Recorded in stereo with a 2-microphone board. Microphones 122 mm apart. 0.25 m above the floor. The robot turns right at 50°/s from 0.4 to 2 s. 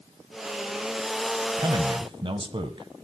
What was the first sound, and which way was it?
A man speaking, 35° right (ahead or behind).